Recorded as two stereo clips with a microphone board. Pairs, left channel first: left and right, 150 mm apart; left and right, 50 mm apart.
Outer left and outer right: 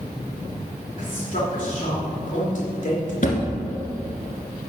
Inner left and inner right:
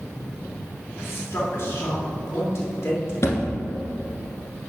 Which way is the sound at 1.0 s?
60° left (ahead or behind).